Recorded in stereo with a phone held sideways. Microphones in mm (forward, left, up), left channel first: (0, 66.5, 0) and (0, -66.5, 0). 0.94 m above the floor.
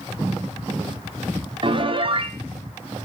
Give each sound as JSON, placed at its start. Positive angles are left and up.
{"t": 1.6, "sound": "a piano", "side_deg": -40, "distance_m": 0.6}